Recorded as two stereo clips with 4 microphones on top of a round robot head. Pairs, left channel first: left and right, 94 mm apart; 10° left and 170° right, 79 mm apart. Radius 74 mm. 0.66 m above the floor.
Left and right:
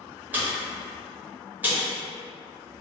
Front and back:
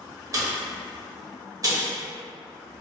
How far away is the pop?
About 0.9 m.